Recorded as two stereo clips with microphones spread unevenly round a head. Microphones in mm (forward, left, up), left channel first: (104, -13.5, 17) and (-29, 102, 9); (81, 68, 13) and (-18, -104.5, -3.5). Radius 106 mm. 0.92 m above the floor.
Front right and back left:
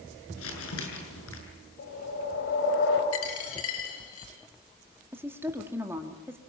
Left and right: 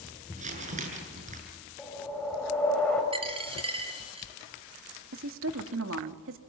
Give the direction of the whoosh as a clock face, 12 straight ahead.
1 o'clock.